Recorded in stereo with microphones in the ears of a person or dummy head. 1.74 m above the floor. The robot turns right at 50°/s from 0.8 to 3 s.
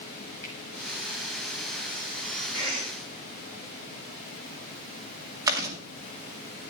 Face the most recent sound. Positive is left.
turn(degrees=-20)  # may be behind; listen again after turning